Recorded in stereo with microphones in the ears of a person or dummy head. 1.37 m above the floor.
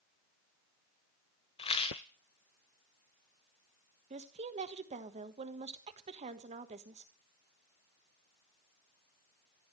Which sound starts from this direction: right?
A woman speaking, at 4.1 s.